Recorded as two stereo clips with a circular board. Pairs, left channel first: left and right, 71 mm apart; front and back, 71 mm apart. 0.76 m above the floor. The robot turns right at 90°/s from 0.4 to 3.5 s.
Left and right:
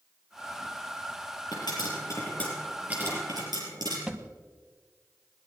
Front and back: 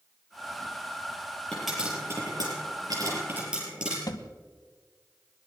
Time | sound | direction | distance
1.5 | a pop | 75° left | 6 m
4.1 | a thud | 15° right | 1.0 m